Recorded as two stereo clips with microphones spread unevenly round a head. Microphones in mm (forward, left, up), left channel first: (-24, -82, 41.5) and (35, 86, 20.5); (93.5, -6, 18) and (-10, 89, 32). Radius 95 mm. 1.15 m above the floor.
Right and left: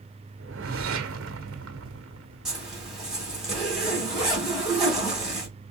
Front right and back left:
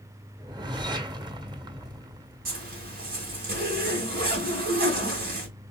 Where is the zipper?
160° left, 2 m.